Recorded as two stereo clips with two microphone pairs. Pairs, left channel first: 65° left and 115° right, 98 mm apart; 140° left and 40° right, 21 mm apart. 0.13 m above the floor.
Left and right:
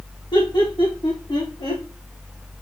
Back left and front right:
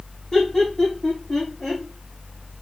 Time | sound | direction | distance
0.3 | laughter | 90° left | 5.5 m